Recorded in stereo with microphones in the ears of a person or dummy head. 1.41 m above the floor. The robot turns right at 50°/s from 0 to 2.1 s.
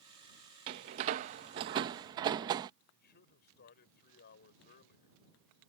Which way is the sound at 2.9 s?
50° left (ahead or behind).